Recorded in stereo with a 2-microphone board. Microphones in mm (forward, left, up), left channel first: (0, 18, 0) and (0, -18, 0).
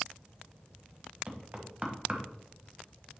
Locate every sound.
1.3 s knocking: 35° right (ahead or behind), 1.3 m